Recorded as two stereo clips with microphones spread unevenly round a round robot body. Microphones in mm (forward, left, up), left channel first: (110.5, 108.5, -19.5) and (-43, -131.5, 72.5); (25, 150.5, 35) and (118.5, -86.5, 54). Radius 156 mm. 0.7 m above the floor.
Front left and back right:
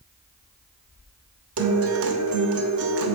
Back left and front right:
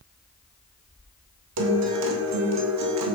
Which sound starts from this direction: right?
A guitar, at 1.6 s.